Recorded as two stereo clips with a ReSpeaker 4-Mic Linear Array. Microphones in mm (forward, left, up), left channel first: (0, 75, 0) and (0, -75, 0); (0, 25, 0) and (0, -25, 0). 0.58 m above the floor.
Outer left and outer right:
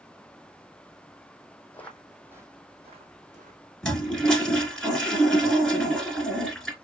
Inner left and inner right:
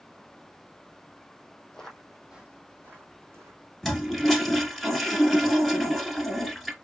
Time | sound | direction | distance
1.7 | footsteps | 15° left (ahead or behind) | 1.2 m
3.8 | a toilet flushing | 5° left (ahead or behind) | 1.4 m